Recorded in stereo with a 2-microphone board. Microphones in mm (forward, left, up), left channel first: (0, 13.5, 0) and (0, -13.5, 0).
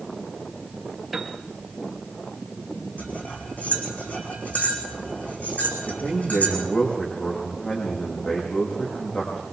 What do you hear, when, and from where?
1.1 s a piano: centre (ahead or behind), 2.5 m
3.0 s cutlery clinking: 75° left (ahead or behind), 5 m
5.9 s a man speaking: 45° left (ahead or behind), 7.5 m